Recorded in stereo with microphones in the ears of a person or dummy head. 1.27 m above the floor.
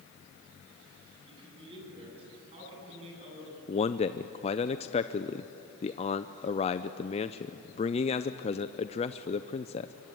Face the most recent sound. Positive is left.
turn(degrees=25)  # may be behind; listen again after turning